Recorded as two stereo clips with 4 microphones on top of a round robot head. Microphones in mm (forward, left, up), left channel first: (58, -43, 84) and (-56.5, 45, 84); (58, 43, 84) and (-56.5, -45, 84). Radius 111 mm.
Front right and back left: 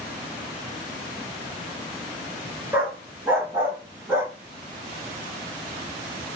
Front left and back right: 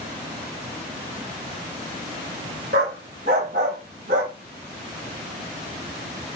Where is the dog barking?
145° right, 0.7 m.